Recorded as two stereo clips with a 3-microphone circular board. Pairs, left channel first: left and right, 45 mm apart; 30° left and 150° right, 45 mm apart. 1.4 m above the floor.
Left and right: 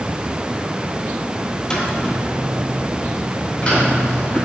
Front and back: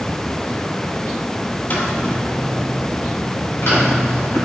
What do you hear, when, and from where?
1.7 s footsteps: 25° left, 1.9 m